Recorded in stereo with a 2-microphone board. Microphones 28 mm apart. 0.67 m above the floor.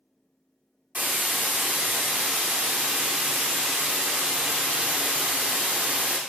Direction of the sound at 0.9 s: 55° right (ahead or behind).